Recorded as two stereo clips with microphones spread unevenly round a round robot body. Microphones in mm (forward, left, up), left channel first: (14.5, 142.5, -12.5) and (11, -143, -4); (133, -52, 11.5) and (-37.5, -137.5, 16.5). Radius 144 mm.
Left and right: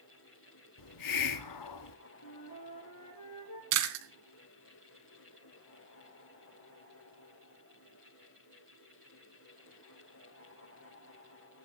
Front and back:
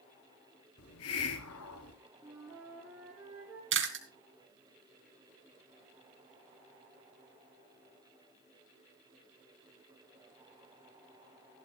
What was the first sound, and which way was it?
A hiss, 65° left.